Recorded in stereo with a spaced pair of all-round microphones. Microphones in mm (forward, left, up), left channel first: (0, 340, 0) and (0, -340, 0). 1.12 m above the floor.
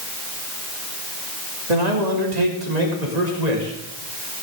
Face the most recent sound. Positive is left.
turn(degrees=-75)  # may be behind; listen again after turning